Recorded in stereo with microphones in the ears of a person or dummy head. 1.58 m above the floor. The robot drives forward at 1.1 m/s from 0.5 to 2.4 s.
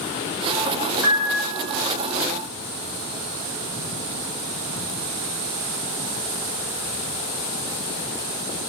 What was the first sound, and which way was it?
A piano, 10° right (ahead or behind).